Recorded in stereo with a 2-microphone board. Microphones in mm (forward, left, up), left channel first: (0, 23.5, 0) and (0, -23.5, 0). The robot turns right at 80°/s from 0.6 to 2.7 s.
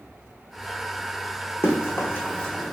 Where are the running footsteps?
55° left (ahead or behind), 1.4 m; by 2.7 s 5° right (ahead or behind), 1.0 m.